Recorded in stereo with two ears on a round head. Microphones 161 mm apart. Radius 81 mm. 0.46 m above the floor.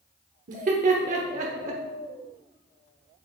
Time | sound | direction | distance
0.5 | laughter | 45° right (ahead or behind) | 0.9 m